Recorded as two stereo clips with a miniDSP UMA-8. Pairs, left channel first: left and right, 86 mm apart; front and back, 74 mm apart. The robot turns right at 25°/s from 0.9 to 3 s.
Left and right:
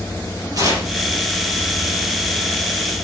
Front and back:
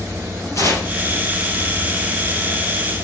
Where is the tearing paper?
45° right, 4 m.